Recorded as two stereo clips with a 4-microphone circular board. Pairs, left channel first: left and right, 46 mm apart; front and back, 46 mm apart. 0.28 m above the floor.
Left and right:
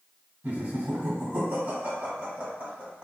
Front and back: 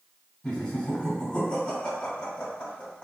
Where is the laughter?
60° right, 1.8 m.